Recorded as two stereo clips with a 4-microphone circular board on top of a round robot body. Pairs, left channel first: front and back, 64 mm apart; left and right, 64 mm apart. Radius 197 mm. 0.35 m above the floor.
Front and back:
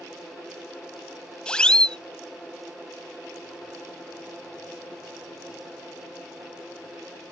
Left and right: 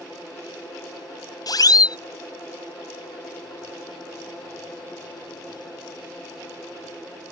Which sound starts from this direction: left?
A siren, at 1.5 s.